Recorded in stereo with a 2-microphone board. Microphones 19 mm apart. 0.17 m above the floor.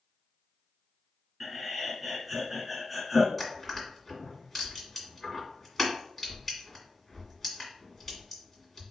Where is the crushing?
Centre (ahead or behind), 1.7 m.